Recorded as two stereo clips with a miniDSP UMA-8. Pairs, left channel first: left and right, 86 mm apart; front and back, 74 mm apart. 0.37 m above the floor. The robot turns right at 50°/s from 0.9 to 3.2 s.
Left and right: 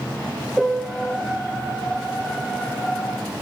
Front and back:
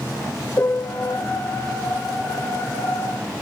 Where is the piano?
Straight ahead, 1.2 m; by 1.2 s 15° left, 1.2 m.